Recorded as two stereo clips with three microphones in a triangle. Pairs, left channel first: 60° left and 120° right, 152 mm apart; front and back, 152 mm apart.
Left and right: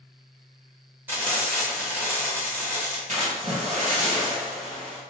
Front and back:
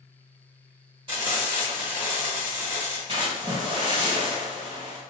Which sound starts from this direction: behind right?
A splash, at 3.1 s.